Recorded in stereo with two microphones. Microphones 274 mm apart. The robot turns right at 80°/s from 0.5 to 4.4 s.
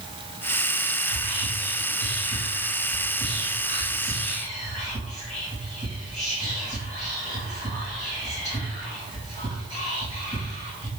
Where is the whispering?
25° right (ahead or behind), 1.5 m; by 10.9 s 25° left (ahead or behind), 1.5 m.